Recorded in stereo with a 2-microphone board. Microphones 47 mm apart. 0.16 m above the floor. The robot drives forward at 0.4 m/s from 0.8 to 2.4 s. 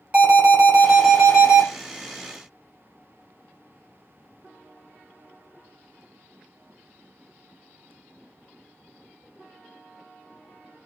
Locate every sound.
0.1 s an alarm: 25° right (ahead or behind), 1.3 m